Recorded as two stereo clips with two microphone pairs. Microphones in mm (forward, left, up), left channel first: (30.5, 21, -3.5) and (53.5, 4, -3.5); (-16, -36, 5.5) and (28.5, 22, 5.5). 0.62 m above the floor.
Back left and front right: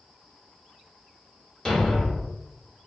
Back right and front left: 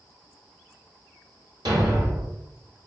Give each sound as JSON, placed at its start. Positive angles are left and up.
{"t": 1.6, "sound": "a thud", "azimuth_deg": 75, "distance_m": 1.2}